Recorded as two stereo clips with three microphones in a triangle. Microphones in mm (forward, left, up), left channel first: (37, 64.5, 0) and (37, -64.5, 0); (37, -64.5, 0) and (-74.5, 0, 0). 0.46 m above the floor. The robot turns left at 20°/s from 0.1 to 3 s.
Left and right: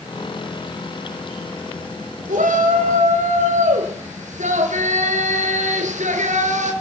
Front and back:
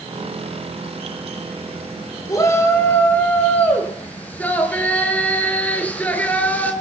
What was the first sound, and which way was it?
A shout, 95° right.